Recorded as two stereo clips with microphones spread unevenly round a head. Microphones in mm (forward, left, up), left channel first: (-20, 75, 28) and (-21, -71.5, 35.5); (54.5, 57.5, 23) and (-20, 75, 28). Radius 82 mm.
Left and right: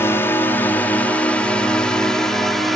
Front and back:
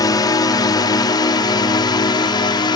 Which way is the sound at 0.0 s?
15° left.